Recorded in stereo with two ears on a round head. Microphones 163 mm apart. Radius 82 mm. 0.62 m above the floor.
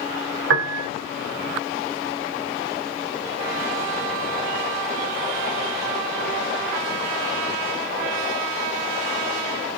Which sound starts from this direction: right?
A piano, at 0.5 s.